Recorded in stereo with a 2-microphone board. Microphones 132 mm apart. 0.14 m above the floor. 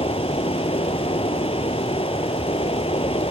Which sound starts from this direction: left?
Running water, at 0.0 s.